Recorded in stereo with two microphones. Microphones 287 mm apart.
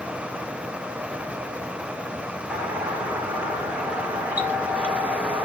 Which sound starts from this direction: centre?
A doorbell, at 2.5 s.